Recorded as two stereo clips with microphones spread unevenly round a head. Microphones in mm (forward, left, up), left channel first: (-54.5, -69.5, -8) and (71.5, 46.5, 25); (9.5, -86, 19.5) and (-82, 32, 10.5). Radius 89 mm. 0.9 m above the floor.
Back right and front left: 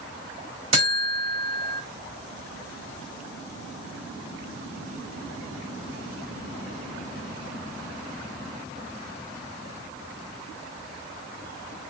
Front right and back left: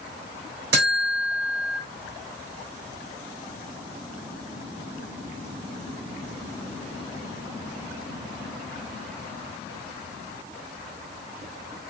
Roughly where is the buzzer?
Left.